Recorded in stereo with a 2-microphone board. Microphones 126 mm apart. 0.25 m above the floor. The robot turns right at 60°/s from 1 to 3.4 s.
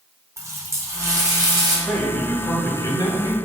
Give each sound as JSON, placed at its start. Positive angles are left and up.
{"t": 0.4, "sound": "a running tap", "azimuth_deg": -130, "distance_m": 1.0}
{"t": 1.9, "sound": "a man speaking", "azimuth_deg": 5, "distance_m": 1.1}